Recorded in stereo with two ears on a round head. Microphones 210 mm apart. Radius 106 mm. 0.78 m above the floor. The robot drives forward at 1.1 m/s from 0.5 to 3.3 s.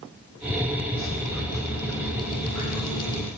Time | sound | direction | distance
0.9 | dripping | 60° left (ahead or behind) | 7 m